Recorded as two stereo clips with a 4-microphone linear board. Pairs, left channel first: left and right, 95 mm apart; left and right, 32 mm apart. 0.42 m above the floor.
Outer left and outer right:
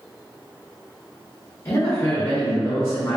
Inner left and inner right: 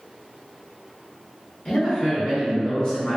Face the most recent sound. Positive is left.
turn(degrees=35)  # may be behind; listen again after turning